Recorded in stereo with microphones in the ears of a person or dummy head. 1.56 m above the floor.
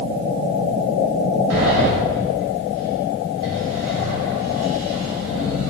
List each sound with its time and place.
1.5 s a sliding door: 65° right (ahead or behind), 0.7 m